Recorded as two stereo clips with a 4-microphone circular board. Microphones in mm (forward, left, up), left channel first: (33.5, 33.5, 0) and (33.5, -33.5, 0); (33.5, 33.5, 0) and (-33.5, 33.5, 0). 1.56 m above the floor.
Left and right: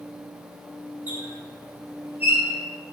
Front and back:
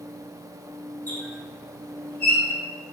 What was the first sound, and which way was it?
A squeak, 40° right.